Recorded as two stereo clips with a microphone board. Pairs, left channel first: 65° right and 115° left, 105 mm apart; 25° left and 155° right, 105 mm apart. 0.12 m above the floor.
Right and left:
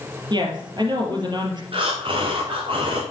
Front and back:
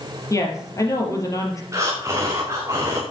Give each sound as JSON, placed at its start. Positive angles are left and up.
{"t": 0.3, "sound": "a woman speaking", "azimuth_deg": 75, "distance_m": 3.0}
{"t": 1.7, "sound": "breathing", "azimuth_deg": 140, "distance_m": 3.0}